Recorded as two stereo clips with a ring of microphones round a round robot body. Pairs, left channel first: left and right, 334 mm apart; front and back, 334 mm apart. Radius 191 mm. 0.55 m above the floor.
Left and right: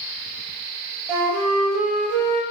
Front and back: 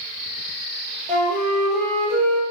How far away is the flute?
About 0.7 m.